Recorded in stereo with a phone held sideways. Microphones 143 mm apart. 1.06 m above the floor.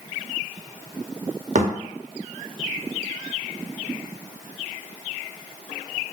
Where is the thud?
60° right (ahead or behind), 0.7 m.